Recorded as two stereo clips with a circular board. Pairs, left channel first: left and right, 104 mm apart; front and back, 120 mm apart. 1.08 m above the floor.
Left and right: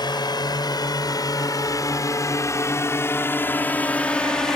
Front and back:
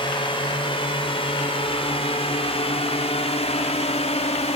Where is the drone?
45° left; by 4.6 s 5° left.